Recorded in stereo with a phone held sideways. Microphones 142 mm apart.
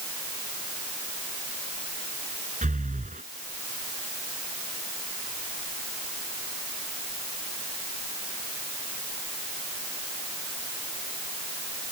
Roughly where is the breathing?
Right.